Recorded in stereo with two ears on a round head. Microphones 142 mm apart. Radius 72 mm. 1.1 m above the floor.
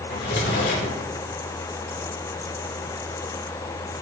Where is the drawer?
75° left (ahead or behind), 8.5 m.